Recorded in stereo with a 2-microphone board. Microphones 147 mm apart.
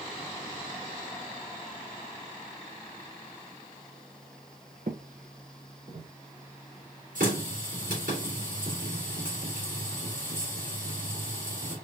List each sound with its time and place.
4.9 s footsteps: 70° right (ahead or behind), 0.6 m; by 6.1 s 75° right (ahead or behind), 2.5 m
7.2 s a running tap: 75° right (ahead or behind), 3 m